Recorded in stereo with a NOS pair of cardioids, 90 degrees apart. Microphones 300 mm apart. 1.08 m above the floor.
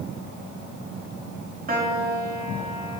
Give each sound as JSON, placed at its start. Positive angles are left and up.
{"t": 1.7, "sound": "a piano", "azimuth_deg": -30, "distance_m": 1.8}